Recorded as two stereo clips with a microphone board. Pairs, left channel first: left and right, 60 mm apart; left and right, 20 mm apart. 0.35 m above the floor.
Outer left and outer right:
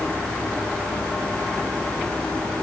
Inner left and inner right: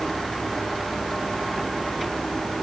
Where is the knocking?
No knocking in this recording.